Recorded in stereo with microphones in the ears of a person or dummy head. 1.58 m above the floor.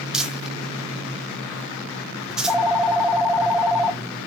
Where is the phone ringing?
Centre (ahead or behind), 0.8 m.